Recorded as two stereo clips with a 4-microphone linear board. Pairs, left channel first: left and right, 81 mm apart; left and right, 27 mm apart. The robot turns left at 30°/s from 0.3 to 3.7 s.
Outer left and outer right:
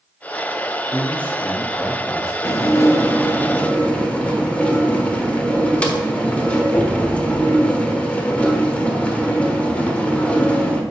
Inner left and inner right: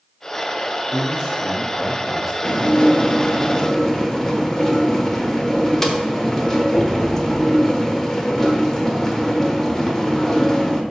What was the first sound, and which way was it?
A man speaking, 145° right.